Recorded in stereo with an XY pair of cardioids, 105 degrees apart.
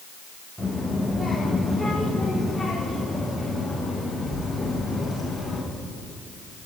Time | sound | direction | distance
0.6 | a child speaking | 10° right | 4 m